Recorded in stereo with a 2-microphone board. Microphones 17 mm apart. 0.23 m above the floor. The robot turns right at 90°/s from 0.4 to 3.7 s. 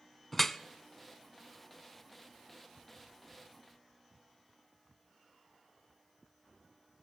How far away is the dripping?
About 0.5 m.